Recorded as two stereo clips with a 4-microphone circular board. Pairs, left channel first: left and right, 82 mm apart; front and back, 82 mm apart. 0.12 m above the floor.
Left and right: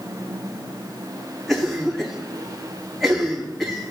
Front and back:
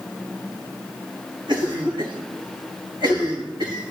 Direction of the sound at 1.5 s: 175° left.